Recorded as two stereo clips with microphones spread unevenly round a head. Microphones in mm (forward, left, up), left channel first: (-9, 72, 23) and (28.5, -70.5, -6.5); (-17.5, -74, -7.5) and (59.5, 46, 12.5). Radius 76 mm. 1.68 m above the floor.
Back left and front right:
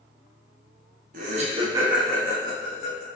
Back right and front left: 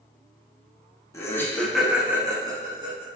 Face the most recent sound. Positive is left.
turn(degrees=100)